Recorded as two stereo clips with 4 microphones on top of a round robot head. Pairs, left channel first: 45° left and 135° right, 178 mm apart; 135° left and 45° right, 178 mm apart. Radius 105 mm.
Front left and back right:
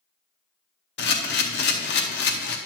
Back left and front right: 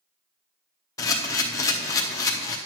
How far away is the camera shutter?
About 0.6 m.